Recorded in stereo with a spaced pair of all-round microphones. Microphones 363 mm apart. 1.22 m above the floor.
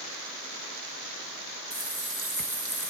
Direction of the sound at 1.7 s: 55° right (ahead or behind).